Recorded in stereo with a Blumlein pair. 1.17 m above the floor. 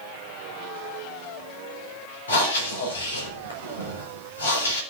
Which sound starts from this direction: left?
Breathing, at 2.3 s.